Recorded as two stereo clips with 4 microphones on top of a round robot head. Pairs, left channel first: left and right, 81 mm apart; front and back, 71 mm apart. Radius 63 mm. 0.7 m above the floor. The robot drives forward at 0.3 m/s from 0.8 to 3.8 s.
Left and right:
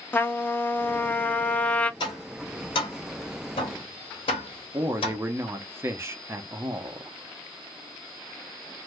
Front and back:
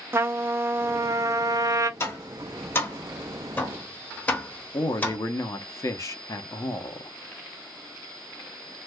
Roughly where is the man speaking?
Ahead right.